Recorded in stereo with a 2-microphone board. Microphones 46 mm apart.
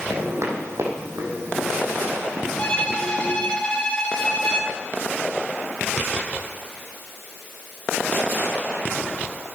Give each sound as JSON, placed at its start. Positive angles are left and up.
{"t": 0.1, "sound": "footsteps", "side_deg": -60, "distance_m": 4.5}
{"t": 2.6, "sound": "a violin", "side_deg": 25, "distance_m": 3.0}